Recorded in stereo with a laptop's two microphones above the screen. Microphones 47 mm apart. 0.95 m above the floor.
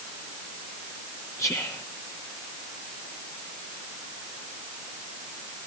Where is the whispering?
75° left (ahead or behind), 0.9 m.